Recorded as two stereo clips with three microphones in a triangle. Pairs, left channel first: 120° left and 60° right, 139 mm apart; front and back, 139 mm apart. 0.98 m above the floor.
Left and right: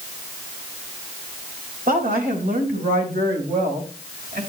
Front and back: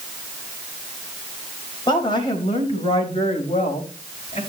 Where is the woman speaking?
55° right, 4 m; by 4.4 s 45° right, 5 m.